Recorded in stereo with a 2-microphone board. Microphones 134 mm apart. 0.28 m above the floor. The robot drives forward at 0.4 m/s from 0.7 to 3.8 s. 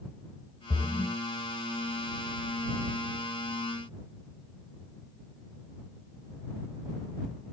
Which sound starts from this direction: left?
A splash, at 0.7 s.